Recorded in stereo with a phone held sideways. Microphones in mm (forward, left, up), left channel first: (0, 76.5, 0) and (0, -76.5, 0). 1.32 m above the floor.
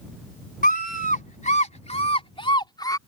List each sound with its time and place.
0.6 s a scream: 70° left (ahead or behind); by 3.0 s 25° left (ahead or behind)